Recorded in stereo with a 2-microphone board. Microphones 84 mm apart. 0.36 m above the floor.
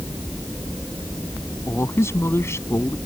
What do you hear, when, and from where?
1.7 s a man speaking: 35° left (ahead or behind)